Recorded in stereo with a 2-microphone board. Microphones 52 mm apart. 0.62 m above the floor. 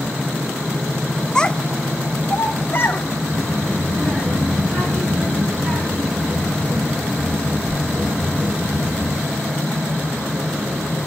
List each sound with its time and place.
1.4 s a child speaking: 15° left (ahead or behind), 1.1 m; by 3.0 s 40° left (ahead or behind), 1.8 m
3.3 s a child speaking: 30° right (ahead or behind), 4 m